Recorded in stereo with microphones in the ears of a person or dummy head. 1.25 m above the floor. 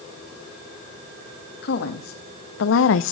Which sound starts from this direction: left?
A woman speaking, at 1.6 s.